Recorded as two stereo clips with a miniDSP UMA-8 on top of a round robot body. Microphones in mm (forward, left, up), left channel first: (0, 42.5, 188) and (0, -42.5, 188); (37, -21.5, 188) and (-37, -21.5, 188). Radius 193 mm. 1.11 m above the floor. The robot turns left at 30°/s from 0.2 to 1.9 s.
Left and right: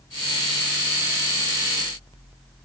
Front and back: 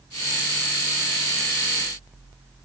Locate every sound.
Only background noise.